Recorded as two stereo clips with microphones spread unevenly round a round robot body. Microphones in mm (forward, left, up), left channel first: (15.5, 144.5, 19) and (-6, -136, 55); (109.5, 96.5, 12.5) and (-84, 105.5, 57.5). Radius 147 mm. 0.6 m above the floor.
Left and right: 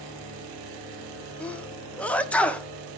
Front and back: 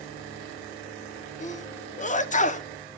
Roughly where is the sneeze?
Ahead.